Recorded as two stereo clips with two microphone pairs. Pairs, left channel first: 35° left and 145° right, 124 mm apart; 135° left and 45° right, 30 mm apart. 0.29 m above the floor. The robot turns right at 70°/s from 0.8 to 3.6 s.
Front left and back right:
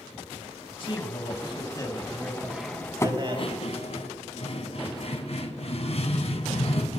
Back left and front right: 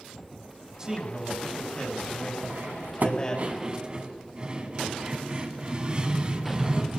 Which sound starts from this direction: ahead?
A man speaking, at 0.8 s.